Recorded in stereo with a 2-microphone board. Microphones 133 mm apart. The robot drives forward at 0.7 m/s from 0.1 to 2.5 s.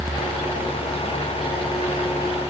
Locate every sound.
Only background noise.